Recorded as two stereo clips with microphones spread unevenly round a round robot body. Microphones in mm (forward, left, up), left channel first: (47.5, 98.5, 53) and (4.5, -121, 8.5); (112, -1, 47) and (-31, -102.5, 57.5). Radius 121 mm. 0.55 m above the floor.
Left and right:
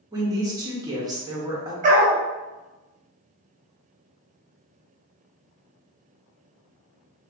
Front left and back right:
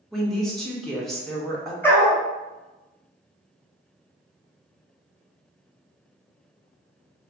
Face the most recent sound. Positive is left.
turn(degrees=-45)